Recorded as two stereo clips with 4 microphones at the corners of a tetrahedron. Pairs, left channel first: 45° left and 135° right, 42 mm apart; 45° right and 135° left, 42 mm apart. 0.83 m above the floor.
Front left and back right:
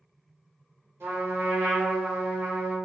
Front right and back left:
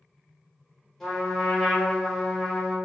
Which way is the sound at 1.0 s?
125° right.